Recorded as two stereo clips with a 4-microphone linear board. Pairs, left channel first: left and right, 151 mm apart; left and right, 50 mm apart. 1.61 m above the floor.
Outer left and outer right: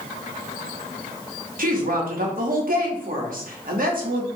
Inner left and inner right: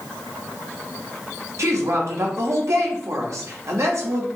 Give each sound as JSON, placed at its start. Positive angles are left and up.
{"t": 1.6, "sound": "a woman speaking", "side_deg": -70, "distance_m": 1.0}